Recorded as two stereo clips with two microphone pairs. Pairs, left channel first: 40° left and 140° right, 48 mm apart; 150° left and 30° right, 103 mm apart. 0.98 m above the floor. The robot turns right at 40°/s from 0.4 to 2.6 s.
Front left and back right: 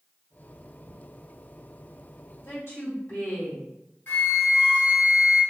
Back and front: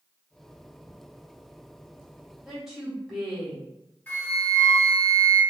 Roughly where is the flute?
Left.